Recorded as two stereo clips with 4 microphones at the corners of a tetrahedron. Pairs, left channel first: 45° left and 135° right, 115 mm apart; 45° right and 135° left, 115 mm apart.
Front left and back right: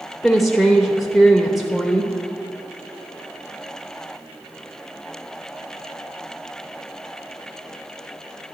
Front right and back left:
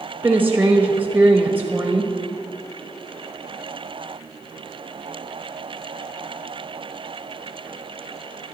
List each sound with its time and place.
0.2 s a woman speaking: 135° left, 0.9 m